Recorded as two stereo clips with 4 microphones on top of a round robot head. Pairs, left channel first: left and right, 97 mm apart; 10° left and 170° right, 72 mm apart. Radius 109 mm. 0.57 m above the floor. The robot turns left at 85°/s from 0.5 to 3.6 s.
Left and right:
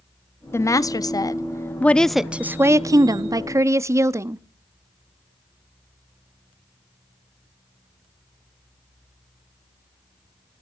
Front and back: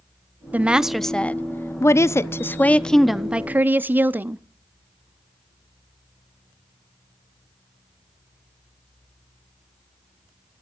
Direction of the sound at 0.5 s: 135° left.